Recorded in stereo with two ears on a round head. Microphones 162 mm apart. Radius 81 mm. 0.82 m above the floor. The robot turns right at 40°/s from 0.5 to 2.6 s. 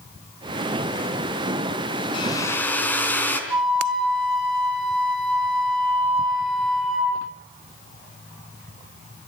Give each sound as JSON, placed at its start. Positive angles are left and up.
{"t": 2.1, "sound": "a hair dryer", "side_deg": 30, "distance_m": 4.0}
{"t": 3.5, "sound": "a flute", "side_deg": -5, "distance_m": 9.0}